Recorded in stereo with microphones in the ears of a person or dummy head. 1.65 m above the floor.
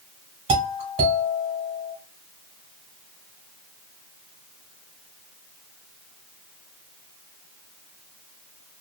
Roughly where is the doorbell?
Right.